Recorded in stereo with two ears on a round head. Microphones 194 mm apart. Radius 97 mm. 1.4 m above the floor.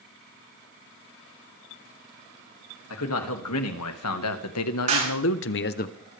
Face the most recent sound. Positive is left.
turn(degrees=-35)  # may be behind; listen again after turning